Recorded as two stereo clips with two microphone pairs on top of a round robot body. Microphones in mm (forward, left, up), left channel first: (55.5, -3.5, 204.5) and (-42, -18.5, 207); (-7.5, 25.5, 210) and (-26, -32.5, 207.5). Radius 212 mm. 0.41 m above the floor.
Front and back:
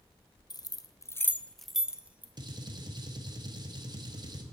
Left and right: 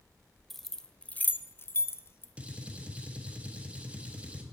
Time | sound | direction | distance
0.5 | keys jangling | 20° right | 0.7 m
2.4 | a gunshot | 165° right | 1.1 m